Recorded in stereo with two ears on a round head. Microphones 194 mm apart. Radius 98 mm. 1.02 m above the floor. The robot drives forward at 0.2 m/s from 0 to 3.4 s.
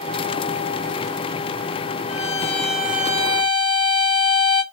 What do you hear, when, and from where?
2.1 s a violin: 30° left (ahead or behind), 0.9 m; by 4.6 s 25° left (ahead or behind), 1.0 m